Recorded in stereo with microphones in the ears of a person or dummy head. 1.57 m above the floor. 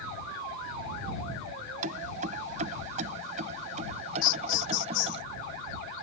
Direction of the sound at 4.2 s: 65° left (ahead or behind).